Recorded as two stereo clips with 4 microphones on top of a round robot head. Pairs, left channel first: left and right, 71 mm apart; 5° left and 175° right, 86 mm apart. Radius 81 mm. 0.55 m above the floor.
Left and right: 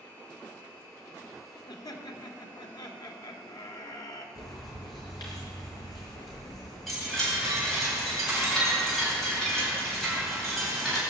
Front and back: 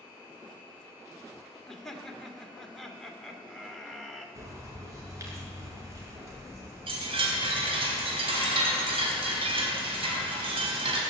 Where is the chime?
Straight behind, 4 m.